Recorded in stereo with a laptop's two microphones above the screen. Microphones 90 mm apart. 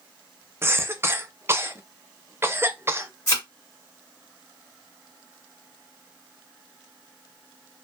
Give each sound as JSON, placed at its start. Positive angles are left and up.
{"t": 0.6, "sound": "a cough", "side_deg": -30, "distance_m": 0.6}
{"t": 3.3, "sound": "a thud", "side_deg": 35, "distance_m": 1.2}